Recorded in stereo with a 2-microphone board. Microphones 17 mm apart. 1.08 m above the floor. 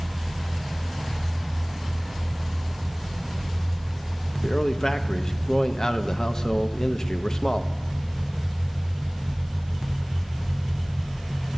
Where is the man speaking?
40° left (ahead or behind), 0.6 m.